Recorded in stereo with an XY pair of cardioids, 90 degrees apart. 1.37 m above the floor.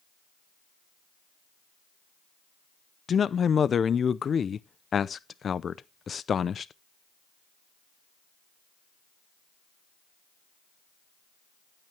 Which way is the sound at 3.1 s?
50° left.